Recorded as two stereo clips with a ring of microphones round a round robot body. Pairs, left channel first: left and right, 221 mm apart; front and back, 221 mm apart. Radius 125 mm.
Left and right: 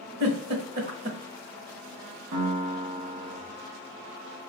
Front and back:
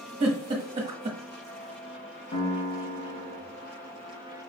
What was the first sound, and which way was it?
A giggle, 120° right.